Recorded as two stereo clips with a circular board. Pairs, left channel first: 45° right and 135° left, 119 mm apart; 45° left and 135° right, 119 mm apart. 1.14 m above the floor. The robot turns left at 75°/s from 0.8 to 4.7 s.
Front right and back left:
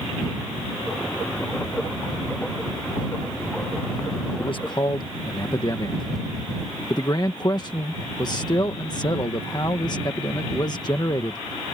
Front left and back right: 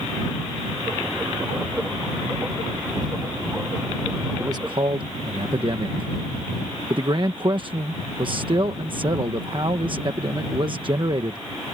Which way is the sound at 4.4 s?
70° right.